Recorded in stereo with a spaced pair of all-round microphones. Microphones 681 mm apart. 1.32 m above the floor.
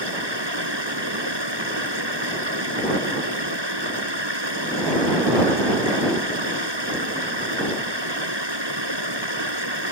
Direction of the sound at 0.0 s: 40° right (ahead or behind).